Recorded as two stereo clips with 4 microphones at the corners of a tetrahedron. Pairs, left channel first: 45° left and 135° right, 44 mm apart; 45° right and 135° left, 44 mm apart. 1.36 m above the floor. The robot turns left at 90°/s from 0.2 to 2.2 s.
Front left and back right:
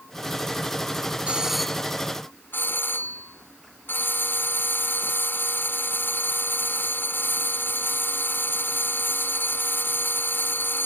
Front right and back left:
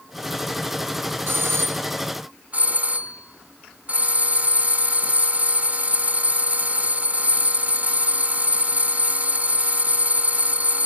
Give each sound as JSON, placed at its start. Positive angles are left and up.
{"t": 1.3, "sound": "a doorbell", "azimuth_deg": 165}